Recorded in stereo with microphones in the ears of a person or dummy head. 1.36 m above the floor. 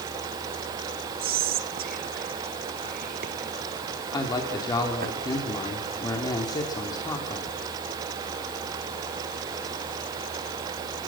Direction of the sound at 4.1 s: 20° left (ahead or behind).